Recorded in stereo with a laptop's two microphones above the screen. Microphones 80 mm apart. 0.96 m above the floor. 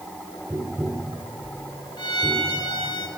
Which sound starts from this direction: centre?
Tapping, at 0.5 s.